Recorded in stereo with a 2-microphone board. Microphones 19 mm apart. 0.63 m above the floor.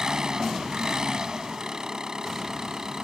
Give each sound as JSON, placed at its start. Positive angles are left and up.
{"t": 0.0, "sound": "an engine running", "side_deg": -35}